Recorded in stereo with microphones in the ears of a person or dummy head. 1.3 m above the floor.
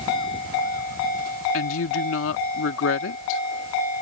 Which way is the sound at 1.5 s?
75° left (ahead or behind).